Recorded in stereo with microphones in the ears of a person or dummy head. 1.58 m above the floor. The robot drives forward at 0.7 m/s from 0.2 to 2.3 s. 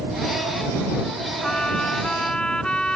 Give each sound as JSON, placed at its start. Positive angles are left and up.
{"t": 1.4, "sound": "a trumpet", "side_deg": 0}